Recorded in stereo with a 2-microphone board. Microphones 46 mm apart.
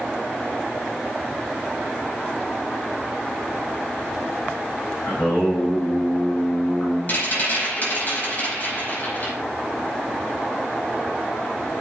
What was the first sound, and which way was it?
Singing, 50° left (ahead or behind).